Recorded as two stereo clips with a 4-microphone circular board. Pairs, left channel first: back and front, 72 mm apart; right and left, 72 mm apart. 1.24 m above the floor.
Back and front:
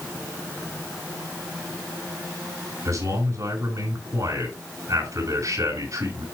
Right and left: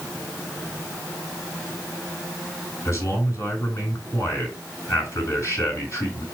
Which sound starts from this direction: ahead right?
A man speaking, at 2.9 s.